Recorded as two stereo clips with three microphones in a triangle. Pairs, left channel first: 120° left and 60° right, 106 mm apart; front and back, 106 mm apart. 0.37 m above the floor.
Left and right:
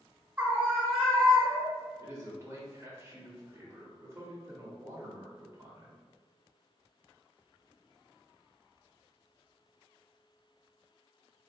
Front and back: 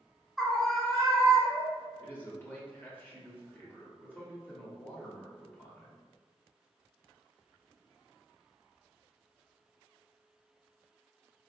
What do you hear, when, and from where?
0.4 s a scream: 90° right, 0.9 m; by 1.9 s 75° left, 1.1 m
2.0 s a man speaking: 50° right, 1.0 m